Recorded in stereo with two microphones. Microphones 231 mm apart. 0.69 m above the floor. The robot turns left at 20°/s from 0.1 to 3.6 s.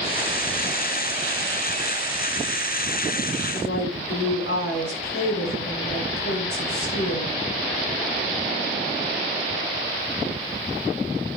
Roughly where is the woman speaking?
Left.